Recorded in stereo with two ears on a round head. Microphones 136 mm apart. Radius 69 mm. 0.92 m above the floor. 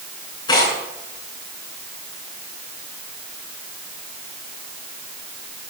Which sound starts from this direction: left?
Tearing paper, at 0.5 s.